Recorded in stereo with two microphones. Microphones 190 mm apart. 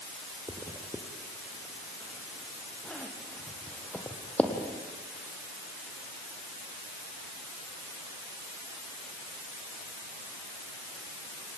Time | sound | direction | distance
0.5 | a zipper | 10° left (ahead or behind) | 3 m